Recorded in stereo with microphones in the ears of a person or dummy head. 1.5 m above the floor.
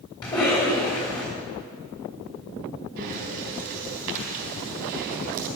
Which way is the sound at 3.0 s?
50° right (ahead or behind).